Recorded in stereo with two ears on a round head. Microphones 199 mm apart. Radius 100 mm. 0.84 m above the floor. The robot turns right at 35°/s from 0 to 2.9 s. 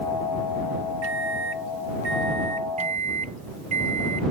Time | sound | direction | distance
1.0 | a microwave | 95° right | ?
2.8 | a microwave | 30° right (ahead or behind) | ?